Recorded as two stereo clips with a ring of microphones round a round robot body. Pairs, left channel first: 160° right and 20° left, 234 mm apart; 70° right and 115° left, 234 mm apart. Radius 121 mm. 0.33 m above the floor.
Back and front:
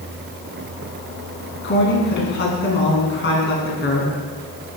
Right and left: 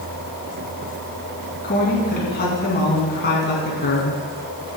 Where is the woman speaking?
115° right, 4 m.